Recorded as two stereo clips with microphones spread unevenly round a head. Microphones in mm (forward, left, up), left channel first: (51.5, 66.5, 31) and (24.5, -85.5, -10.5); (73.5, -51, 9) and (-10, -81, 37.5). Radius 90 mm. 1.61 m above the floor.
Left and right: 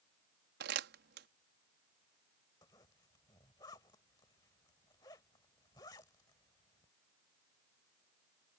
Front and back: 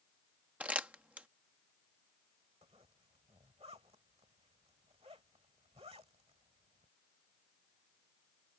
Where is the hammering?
No hammering in this recording.